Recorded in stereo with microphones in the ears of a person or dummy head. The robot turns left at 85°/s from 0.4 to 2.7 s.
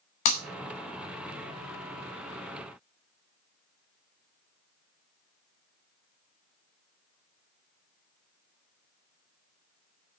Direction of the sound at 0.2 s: 40° left (ahead or behind).